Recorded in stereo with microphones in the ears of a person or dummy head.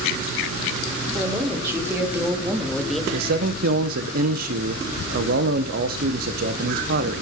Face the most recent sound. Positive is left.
turn(degrees=-55)  # may be behind; listen again after turning